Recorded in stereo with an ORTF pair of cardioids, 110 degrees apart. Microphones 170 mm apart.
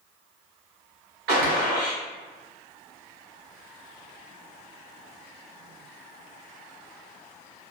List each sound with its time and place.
1.3 s a gunshot: 70° right, 1.2 m